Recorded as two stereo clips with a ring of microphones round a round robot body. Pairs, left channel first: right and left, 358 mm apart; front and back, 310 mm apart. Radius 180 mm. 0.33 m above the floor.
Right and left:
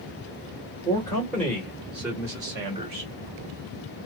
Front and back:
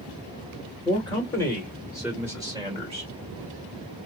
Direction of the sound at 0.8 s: 30° right.